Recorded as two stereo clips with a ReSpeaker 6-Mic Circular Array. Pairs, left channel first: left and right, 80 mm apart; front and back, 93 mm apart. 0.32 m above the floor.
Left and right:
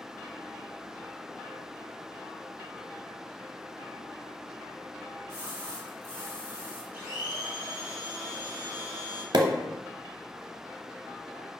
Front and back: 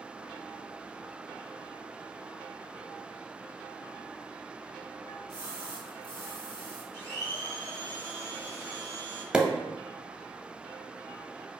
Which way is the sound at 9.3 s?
100° right.